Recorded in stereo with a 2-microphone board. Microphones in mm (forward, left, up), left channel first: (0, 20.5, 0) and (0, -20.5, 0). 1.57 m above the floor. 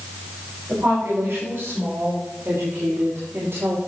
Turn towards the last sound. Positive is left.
turn(degrees=-80)